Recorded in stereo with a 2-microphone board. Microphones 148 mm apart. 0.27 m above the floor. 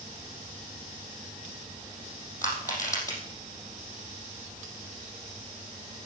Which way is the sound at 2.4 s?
20° left (ahead or behind).